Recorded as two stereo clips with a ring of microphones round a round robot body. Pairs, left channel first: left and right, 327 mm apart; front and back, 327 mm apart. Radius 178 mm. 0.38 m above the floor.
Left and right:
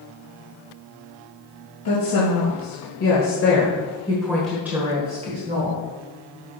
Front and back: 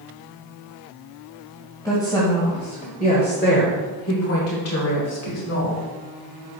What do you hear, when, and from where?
1.9 s a woman speaking: 80° left, 2 m; by 5.8 s 35° right, 1.9 m